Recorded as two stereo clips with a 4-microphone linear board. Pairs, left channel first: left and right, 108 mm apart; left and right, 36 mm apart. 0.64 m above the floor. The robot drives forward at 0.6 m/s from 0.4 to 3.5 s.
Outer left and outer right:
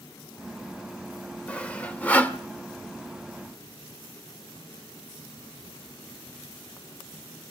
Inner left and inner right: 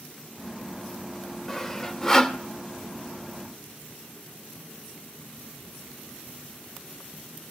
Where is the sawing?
10° left (ahead or behind), 2 m; by 2.4 s 15° left (ahead or behind), 1.7 m.